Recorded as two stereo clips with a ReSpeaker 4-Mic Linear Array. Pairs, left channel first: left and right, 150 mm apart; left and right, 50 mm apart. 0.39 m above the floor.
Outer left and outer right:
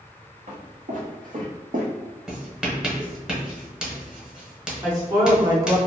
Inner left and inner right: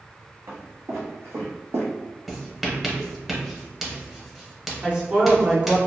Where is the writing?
5° right (ahead or behind), 0.7 m.